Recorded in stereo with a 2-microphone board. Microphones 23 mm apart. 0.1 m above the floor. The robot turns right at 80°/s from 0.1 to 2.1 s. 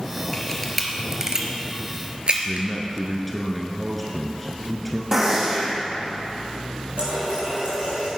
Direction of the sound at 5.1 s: 25° right (ahead or behind).